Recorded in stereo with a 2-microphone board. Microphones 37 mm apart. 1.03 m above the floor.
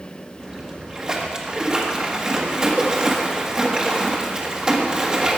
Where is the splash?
20° right (ahead or behind), 1.4 m.